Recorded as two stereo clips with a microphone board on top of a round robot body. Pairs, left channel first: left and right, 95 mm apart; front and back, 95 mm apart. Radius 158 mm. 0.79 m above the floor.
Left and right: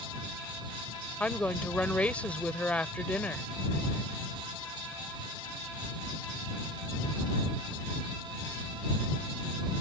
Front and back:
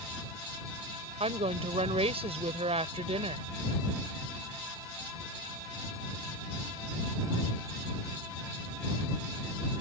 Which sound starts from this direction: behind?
A woman speaking, at 1.2 s.